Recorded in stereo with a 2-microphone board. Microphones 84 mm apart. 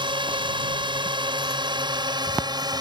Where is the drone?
75° right (ahead or behind); by 2.8 s 55° right (ahead or behind).